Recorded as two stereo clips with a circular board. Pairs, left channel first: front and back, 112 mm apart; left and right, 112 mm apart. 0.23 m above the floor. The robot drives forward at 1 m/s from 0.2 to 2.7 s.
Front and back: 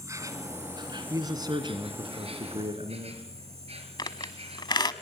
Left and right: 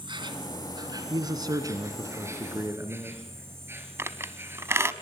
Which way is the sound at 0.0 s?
125° right.